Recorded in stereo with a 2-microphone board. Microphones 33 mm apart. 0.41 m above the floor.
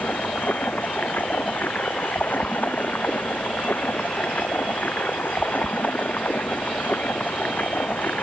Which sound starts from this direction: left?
Running water, at 0.0 s.